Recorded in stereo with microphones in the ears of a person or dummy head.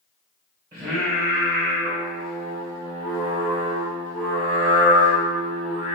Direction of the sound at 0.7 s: 20° right (ahead or behind).